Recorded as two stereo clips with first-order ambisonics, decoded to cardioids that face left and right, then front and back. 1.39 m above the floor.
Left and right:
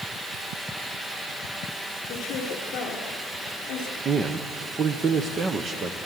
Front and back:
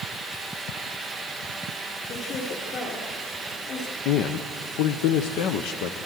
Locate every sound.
2.1 s a woman speaking: 50° left, 4 m
4.0 s a man speaking: 25° right, 0.8 m